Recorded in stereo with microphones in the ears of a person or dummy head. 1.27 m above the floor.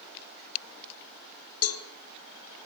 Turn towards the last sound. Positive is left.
turn(degrees=70)  # may be behind; listen again after turning